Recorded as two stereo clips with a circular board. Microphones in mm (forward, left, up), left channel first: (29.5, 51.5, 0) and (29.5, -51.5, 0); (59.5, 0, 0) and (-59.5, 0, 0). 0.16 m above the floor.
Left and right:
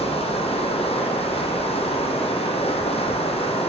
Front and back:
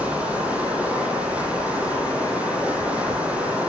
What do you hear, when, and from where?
0.0 s running water: 100° left, 0.9 m